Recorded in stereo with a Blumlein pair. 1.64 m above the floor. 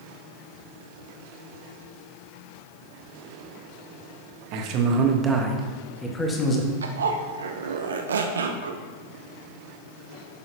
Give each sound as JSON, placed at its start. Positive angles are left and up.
{"t": 4.5, "sound": "a man speaking", "azimuth_deg": -45, "distance_m": 1.5}
{"t": 6.8, "sound": "a zipper", "azimuth_deg": -65, "distance_m": 0.8}